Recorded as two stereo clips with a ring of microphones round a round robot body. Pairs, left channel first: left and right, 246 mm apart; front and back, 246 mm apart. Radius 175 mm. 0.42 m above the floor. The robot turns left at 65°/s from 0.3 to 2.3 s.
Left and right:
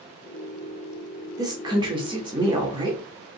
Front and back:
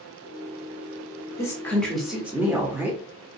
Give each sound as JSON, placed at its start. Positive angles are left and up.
{"t": 1.4, "sound": "a woman speaking", "azimuth_deg": -50, "distance_m": 0.9}